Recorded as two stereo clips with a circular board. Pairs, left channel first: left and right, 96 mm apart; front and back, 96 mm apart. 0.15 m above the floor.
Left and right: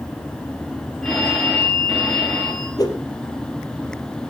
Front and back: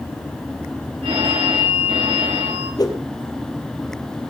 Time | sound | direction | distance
1.0 | a phone ringing | 175° left | 9 m
2.8 | a whoosh | 45° left | 3.5 m